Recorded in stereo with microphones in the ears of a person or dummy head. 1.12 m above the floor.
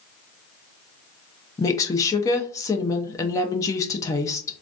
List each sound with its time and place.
1.6 s a woman speaking: 20° left (ahead or behind), 0.6 m